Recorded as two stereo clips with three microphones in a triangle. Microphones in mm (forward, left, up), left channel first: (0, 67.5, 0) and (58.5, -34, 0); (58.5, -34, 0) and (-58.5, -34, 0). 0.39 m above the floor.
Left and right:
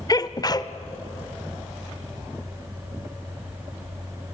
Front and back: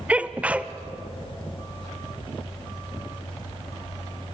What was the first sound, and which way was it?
A sneeze, 110° left.